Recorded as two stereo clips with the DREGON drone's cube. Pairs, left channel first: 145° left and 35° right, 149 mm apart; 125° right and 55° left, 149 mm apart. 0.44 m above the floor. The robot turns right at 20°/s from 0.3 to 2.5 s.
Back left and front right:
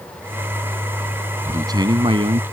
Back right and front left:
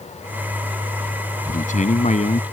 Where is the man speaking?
100° right; by 2.4 s 80° right.